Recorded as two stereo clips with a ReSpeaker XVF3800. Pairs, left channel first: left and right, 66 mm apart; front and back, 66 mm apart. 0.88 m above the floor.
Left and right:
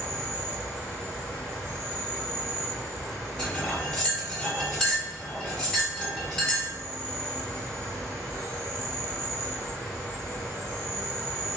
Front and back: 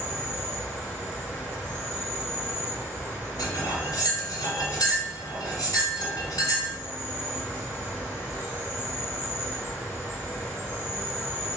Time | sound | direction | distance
0.0 | an insect | 145° left | 1.7 m
3.4 | cutlery clinking | 10° left | 1.5 m